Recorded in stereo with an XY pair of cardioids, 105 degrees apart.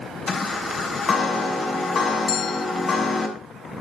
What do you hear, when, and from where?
0.3 s a chime: 45° left, 6.5 m
2.3 s a bell: 60° left, 0.6 m